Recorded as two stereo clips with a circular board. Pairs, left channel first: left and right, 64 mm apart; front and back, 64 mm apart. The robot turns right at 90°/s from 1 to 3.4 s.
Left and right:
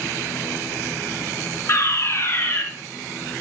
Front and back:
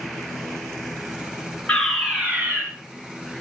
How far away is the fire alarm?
About 3 m.